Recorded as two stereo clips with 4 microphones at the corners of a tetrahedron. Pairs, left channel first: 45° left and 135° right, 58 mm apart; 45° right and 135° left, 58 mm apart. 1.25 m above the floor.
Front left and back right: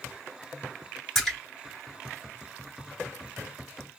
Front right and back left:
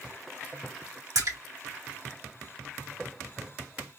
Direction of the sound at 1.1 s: 130° left.